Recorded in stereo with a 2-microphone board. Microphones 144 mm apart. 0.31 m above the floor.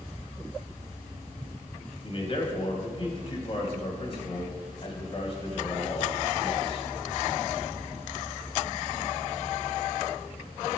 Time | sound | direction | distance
2.0 | a man speaking | 45° left (ahead or behind) | 2 m